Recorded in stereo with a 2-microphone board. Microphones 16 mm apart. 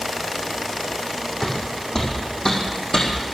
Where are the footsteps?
40° left (ahead or behind), 3.5 m; by 3.1 s 60° left (ahead or behind), 3 m.